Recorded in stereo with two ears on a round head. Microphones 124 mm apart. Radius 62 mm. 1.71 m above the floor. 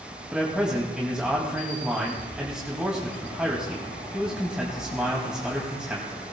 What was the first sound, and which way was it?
A man speaking, 5° right (ahead or behind).